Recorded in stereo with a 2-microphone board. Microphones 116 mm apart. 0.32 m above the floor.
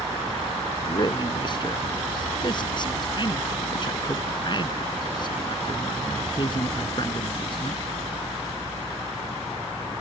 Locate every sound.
0.8 s a man speaking: 40° left (ahead or behind)